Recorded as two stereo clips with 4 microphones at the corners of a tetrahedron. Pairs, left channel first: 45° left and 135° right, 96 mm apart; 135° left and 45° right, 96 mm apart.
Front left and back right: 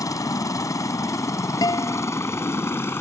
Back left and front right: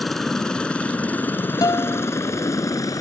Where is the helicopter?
50° left; by 3.0 s 100° left.